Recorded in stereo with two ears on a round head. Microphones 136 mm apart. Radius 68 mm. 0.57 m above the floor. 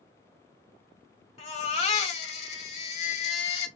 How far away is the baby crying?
About 1.5 m.